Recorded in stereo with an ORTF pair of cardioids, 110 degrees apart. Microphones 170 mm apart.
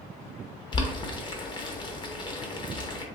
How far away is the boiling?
About 0.7 m.